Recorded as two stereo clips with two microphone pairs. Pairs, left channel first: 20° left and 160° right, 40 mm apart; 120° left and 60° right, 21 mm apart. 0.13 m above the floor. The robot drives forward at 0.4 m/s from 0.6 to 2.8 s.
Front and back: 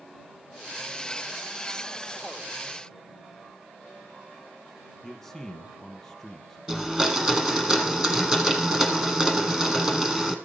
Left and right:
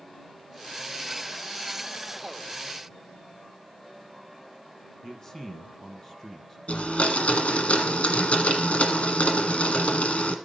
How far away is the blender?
About 1.4 m.